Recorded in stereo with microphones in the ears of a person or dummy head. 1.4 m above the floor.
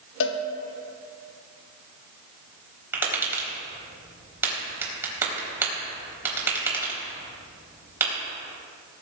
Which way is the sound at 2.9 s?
15° right (ahead or behind).